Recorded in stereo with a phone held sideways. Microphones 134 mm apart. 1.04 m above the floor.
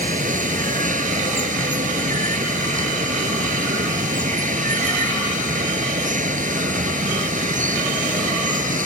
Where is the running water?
75° right (ahead or behind).